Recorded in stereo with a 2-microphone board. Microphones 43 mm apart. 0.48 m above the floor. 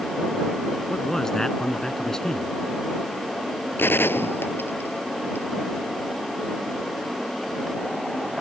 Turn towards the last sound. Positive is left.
turn(degrees=65)  # may be behind; listen again after turning